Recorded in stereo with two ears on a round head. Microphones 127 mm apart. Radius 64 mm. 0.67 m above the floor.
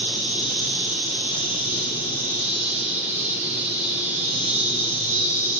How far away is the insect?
About 2.5 m.